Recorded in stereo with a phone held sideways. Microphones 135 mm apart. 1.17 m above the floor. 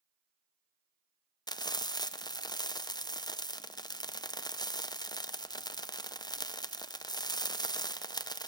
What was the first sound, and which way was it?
Frying, 30° left (ahead or behind).